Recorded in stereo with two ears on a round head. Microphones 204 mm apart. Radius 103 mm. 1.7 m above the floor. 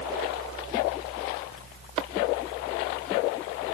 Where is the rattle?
I don't hear a rattle.